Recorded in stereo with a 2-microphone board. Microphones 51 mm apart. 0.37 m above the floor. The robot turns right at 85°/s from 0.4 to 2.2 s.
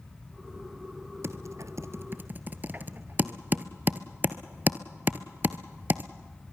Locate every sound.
1.2 s typing on a keyboard: 55° right (ahead or behind), 1.0 m; by 6.1 s 40° right (ahead or behind), 1.0 m